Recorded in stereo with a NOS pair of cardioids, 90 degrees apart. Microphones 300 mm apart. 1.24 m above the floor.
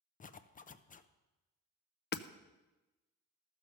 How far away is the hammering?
About 0.6 m.